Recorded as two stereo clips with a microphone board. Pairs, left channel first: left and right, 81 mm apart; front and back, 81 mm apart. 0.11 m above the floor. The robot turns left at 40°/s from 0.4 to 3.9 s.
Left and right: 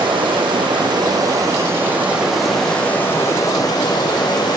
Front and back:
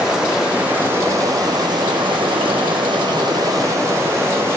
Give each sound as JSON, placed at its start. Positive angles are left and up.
{"t": 0.0, "sound": "running water", "azimuth_deg": -95, "distance_m": 1.9}